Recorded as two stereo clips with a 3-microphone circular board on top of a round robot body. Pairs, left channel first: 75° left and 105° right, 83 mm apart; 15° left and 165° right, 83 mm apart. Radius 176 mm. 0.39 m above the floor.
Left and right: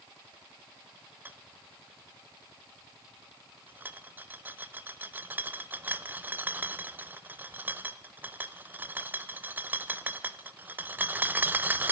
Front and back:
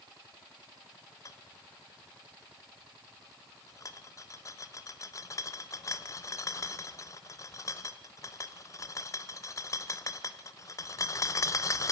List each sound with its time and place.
1.2 s a rattle: 35° right, 0.9 m